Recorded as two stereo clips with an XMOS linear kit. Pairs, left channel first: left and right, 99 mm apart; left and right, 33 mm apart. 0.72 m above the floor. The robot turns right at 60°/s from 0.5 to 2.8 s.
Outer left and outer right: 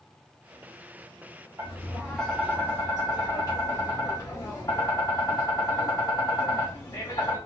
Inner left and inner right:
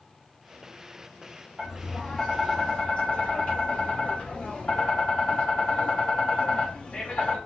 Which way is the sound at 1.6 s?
35° right.